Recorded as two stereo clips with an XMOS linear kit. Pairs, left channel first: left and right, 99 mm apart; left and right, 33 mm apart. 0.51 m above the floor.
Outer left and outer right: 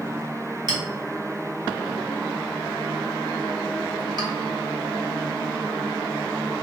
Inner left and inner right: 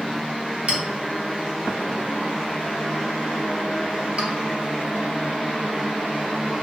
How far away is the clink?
About 0.8 m.